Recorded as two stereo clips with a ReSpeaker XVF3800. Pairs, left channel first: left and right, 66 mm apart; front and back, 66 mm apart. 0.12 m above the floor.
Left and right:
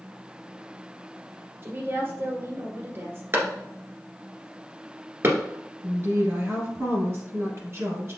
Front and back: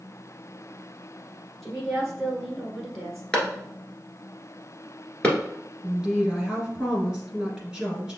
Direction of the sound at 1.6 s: 90° right.